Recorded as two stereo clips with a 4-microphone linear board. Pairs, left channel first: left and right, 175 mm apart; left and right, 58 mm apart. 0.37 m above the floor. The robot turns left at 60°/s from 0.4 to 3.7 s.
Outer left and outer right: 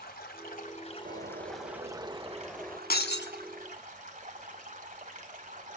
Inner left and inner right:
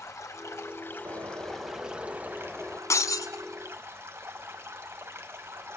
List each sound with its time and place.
0.0 s running water: 70° left, 1.9 m; by 5.8 s 125° right, 1.9 m
1.1 s a bird: 90° right, 0.7 m; by 2.8 s 165° left, 0.7 m
2.9 s breaking glass: 60° left (ahead or behind), 0.9 m; by 3.3 s 85° left, 0.9 m